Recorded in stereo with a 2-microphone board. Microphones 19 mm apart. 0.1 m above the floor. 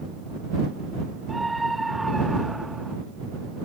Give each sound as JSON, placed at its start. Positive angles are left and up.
{"t": 1.3, "sound": "a scream", "side_deg": 5}